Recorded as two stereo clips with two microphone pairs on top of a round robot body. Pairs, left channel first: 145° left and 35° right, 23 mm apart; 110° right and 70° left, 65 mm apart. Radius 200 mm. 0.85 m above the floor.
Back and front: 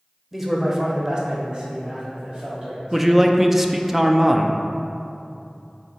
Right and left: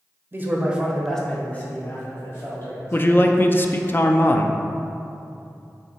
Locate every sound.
0.3 s a man speaking: 40° left, 0.9 m; by 3.3 s 75° right, 1.9 m
2.9 s a man speaking: 80° right, 0.5 m